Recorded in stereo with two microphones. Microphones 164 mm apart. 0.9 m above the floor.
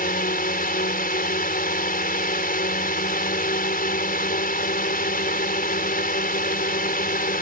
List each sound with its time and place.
0.0 s a drone: 65° left (ahead or behind)